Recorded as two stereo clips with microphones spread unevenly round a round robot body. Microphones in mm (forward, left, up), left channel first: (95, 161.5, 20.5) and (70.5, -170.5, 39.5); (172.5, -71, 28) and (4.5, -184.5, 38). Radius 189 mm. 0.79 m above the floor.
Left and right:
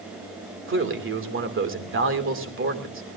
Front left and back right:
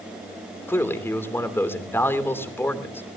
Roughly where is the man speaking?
Ahead right.